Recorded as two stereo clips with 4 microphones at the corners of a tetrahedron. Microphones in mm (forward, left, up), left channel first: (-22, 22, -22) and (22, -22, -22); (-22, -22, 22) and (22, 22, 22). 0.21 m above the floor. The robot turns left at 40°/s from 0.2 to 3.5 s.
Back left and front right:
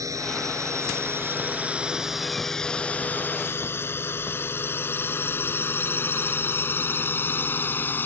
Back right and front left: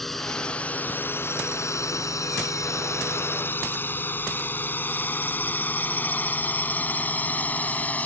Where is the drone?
50° right; by 8.1 s 170° left.